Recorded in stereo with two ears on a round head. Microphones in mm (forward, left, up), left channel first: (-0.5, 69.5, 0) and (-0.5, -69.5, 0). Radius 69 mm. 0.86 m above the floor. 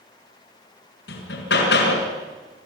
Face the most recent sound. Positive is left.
turn(degrees=80)